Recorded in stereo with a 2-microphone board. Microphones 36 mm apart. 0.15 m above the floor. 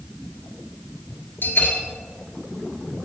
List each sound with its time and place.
1.4 s a bell: 65° left (ahead or behind), 1.9 m